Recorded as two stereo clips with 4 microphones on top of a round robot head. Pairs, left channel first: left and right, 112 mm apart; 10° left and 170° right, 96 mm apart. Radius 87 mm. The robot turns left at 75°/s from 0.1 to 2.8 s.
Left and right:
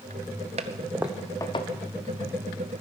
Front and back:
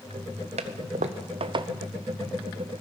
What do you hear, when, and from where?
0.6 s a toilet flushing: 135° right, 0.7 m; by 1.7 s 140° left, 0.7 m